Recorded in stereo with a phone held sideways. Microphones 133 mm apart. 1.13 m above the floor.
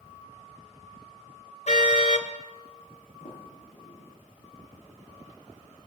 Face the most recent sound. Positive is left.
turn(degrees=75)  # may be behind; listen again after turning